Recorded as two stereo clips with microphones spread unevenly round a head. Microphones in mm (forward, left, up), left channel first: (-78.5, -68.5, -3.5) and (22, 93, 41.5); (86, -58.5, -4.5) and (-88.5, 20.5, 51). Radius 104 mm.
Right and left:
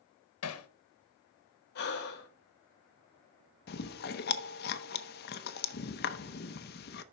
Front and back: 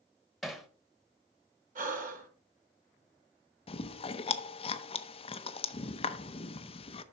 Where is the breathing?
155° right, 1.7 m.